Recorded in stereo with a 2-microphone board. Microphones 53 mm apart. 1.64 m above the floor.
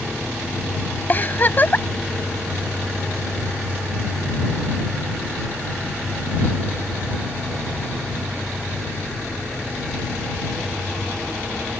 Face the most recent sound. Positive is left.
turn(degrees=35)  # may be behind; listen again after turning